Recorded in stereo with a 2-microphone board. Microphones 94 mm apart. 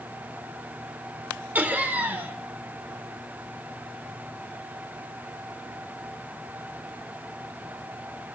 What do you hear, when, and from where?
1.6 s laughter: 20° right (ahead or behind), 0.8 m